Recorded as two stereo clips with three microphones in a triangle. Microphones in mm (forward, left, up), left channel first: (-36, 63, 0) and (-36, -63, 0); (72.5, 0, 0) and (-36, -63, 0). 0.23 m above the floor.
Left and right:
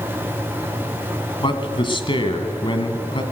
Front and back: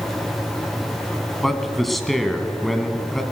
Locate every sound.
1.4 s a man speaking: 120° left, 1.6 m